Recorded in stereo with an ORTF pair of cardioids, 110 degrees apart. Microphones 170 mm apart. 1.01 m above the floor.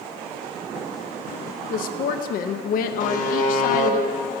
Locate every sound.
1.7 s a woman speaking: 60° left, 0.6 m
3.0 s a buzzer: 50° left, 0.8 m